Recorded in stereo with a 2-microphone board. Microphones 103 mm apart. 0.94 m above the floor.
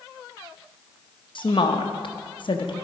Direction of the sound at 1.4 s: 60° left (ahead or behind).